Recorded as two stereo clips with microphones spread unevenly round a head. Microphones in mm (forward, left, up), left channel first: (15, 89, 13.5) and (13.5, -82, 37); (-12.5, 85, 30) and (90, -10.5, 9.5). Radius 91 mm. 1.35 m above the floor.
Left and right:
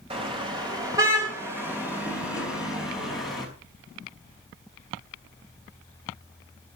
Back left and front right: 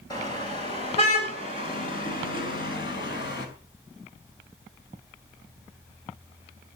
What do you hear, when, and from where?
0.1 s a car horn: 150° right, 3.5 m; by 3.5 s straight behind, 6 m